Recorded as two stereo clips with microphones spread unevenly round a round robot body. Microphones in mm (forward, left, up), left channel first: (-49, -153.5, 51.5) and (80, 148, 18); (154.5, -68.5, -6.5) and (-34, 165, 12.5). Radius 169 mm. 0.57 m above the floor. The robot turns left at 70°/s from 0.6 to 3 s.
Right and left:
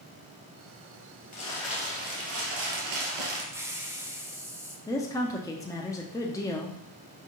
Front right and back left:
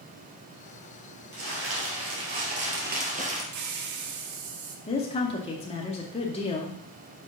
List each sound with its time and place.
1.3 s crumpling: straight behind, 2 m; by 3.4 s 65° left, 2 m
3.5 s a hiss: 145° left, 0.8 m
4.9 s a woman speaking: 35° right, 0.7 m